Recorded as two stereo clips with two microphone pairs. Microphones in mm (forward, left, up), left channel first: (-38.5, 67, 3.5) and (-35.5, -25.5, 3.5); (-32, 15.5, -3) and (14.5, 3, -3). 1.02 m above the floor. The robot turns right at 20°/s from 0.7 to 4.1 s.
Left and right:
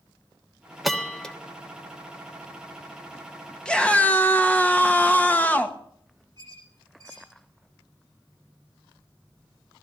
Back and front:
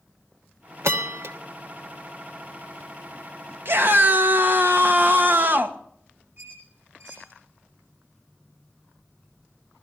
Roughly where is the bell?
Ahead.